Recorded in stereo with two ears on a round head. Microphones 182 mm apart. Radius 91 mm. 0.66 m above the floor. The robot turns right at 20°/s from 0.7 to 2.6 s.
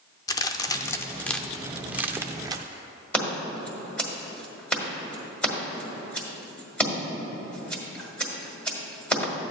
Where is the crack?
15° left (ahead or behind), 0.5 m; by 2.6 s 20° right (ahead or behind), 0.5 m.